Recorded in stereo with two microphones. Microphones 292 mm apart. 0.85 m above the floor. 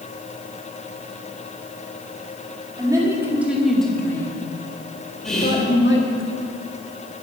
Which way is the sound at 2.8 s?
15° right (ahead or behind).